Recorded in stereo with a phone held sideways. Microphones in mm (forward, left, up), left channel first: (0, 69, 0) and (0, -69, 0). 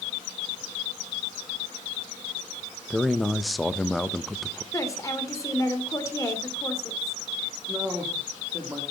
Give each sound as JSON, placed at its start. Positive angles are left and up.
{"t": 2.9, "sound": "a man speaking", "side_deg": 0, "distance_m": 0.8}
{"t": 4.7, "sound": "a woman speaking", "side_deg": 20, "distance_m": 3.0}
{"t": 7.7, "sound": "a man speaking", "side_deg": -10, "distance_m": 2.5}